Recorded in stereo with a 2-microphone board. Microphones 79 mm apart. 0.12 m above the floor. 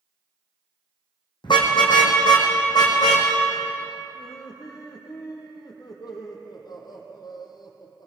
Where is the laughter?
60° left (ahead or behind), 4 m.